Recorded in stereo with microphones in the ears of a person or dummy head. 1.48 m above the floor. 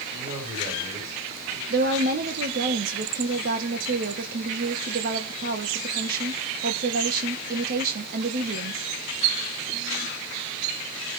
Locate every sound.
0.1 s a man speaking: 40° right (ahead or behind), 9.5 m
1.7 s a woman speaking: 55° right (ahead or behind), 1.5 m